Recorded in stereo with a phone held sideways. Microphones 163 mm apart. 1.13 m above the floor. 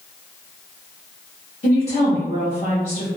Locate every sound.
1.6 s a woman speaking: 40° left (ahead or behind), 0.8 m